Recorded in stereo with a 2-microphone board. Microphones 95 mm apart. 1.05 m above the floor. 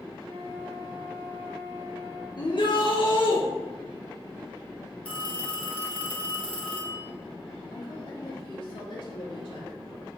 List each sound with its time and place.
0.2 s a flute: 25° right (ahead or behind), 2.5 m
2.4 s a shout: 55° left (ahead or behind), 1.0 m
5.0 s a phone ringing: 15° left (ahead or behind), 1.9 m
7.7 s a woman speaking: 65° left (ahead or behind), 2.5 m